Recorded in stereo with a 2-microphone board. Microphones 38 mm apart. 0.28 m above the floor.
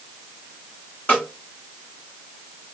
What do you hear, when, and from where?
1.1 s a snare drum: 50° left (ahead or behind), 1.6 m